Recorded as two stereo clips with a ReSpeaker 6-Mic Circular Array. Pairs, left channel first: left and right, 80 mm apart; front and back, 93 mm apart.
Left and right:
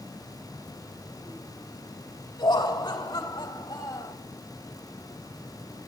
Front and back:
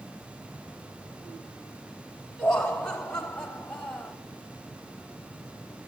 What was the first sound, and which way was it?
Laughter, 80° left.